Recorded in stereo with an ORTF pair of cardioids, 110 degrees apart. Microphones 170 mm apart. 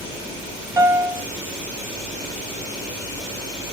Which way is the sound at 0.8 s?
20° right.